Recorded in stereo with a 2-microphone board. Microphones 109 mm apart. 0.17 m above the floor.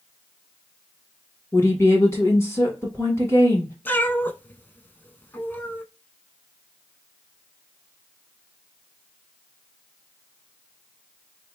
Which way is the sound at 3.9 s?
20° left (ahead or behind).